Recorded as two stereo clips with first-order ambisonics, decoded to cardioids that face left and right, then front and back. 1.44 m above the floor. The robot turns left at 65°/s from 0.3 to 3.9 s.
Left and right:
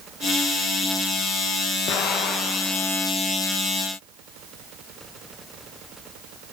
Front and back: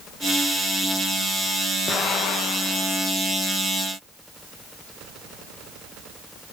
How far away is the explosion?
About 1.2 m.